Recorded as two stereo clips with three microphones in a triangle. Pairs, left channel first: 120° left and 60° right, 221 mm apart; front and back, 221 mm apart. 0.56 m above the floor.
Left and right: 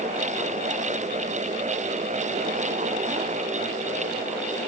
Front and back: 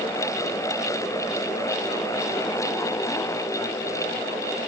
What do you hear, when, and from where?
Only background noise.